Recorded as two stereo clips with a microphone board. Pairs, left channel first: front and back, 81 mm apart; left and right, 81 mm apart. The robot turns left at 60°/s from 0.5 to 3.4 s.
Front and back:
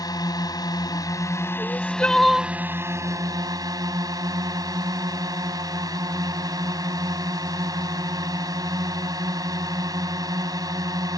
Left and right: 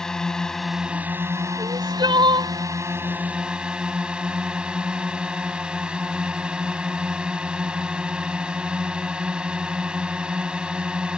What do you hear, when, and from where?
0.0 s a drone: 10° left; by 11.2 s 165° right
1.6 s crying: 45° right; by 2.5 s 105° right